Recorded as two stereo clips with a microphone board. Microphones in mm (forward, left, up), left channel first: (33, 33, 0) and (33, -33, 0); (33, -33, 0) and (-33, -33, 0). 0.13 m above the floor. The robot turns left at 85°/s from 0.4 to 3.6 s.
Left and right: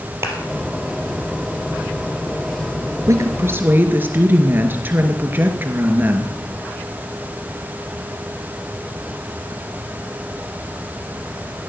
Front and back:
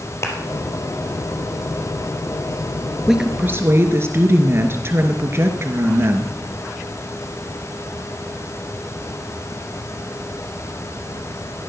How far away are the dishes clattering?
No dishes clattering in this recording.